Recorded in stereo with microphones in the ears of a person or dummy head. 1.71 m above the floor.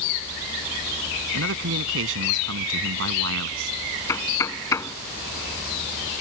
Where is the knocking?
15° left (ahead or behind).